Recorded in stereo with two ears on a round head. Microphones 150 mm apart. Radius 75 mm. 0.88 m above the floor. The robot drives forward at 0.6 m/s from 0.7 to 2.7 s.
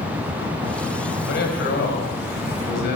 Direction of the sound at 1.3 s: 65° left (ahead or behind).